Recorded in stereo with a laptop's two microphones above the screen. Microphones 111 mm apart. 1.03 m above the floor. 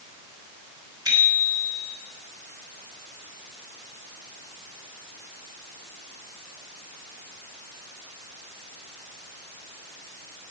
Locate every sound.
1.1 s a bicycle bell: 40° right (ahead or behind), 4 m